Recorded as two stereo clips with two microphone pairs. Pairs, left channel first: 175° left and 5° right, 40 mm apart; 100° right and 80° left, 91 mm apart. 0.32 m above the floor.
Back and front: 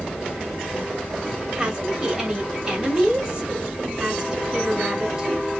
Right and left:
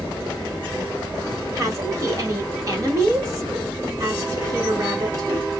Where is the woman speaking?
60° left, 1.2 m.